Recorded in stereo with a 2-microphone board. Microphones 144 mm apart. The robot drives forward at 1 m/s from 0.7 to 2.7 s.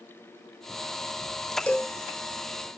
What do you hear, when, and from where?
1.7 s a cowbell: 10° left (ahead or behind), 1.1 m